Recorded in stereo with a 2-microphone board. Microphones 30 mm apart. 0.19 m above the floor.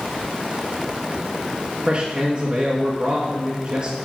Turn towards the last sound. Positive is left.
turn(degrees=-35)  # may be behind; listen again after turning